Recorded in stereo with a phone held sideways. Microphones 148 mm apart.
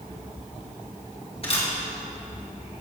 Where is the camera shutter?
45° left (ahead or behind), 1.8 m.